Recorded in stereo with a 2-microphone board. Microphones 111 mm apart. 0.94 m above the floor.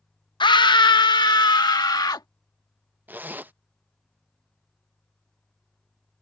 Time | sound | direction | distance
0.4 | a scream | 45° left (ahead or behind) | ?
3.1 | a zipper | 15° right (ahead or behind) | ?